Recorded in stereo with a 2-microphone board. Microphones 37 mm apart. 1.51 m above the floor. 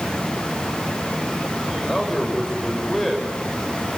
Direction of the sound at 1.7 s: 5° left (ahead or behind).